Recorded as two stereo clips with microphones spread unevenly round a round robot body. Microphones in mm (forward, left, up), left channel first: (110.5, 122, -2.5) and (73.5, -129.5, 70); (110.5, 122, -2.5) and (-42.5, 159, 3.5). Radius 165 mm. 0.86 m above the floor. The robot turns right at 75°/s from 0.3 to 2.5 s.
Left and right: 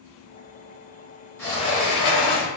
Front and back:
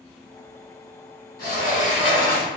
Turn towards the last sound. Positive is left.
turn(degrees=75)